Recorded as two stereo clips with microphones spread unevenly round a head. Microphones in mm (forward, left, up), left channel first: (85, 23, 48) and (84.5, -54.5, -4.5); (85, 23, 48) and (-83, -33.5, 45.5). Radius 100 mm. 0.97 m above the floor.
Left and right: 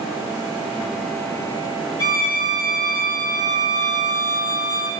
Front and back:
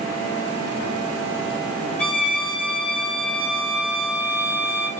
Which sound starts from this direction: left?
A violin, at 2.0 s.